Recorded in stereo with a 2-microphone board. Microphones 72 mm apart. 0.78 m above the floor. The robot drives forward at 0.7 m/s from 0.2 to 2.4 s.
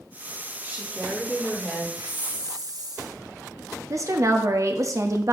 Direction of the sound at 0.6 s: 25° right (ahead or behind).